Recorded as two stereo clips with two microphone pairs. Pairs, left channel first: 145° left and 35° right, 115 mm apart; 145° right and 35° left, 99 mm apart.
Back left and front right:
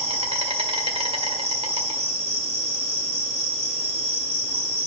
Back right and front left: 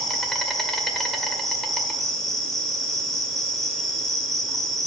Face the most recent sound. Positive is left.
turn(degrees=-60)